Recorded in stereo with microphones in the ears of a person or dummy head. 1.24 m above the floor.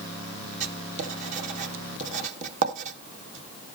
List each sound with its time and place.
0.6 s writing: 40° right (ahead or behind), 0.8 m